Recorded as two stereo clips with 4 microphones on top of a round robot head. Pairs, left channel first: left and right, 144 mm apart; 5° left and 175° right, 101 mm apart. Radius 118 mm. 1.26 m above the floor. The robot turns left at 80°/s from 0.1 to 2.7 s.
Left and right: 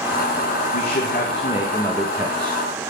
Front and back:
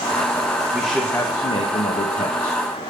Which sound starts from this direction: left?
A man speaking, at 0.7 s.